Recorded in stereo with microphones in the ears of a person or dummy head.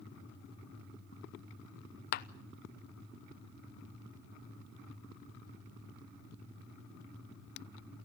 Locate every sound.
2.1 s a clap: 55° left (ahead or behind), 0.9 m